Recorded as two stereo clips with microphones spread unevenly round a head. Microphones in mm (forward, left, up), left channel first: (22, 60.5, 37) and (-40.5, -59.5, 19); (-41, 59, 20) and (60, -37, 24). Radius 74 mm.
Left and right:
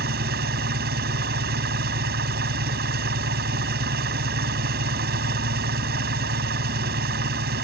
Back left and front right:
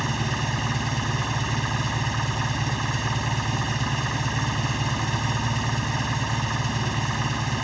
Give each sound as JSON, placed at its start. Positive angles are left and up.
{"t": 0.0, "sound": "an engine running", "azimuth_deg": -135}